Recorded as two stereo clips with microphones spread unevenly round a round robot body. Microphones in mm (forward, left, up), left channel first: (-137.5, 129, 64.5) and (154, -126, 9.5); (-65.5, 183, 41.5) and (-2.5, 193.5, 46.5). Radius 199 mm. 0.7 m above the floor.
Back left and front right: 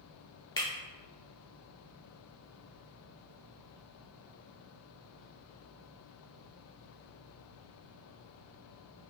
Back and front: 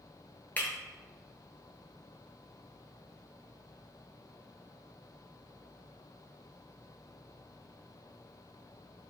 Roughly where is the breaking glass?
Behind.